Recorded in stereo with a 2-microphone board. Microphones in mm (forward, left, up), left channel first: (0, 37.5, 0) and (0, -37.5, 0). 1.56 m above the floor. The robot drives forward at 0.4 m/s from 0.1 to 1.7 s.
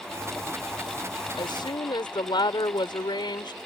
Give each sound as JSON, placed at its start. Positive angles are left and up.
{"t": 1.3, "sound": "a woman speaking", "side_deg": 85}